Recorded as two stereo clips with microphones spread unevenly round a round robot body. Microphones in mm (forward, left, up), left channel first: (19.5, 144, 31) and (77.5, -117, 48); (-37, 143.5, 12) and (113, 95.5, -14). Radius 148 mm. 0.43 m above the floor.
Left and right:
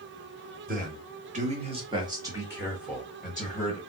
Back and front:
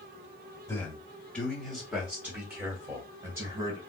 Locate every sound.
0.7 s a man speaking: 120° right, 1.2 m; by 3.8 s 25° left, 1.5 m